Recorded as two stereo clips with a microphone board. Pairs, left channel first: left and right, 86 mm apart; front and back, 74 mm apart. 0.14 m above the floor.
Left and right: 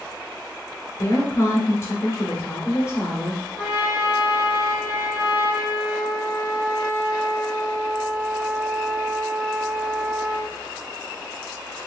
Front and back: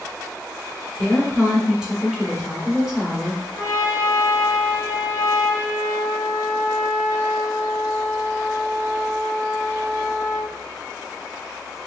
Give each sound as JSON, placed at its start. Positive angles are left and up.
{"t": 1.0, "sound": "a woman speaking", "azimuth_deg": 105, "distance_m": 1.4}
{"t": 3.6, "sound": "a trumpet", "azimuth_deg": -45, "distance_m": 1.9}